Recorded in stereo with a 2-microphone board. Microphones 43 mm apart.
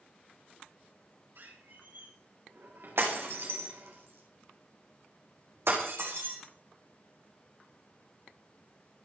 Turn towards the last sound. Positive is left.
turn(degrees=-75)  # may be behind; listen again after turning